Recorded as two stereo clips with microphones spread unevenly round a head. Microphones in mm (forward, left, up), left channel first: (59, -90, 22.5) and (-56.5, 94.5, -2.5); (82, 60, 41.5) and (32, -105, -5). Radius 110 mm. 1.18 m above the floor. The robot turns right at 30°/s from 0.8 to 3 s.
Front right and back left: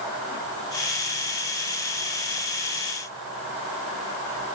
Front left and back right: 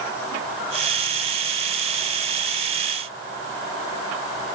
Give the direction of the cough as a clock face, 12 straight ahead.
I don't hear a cough.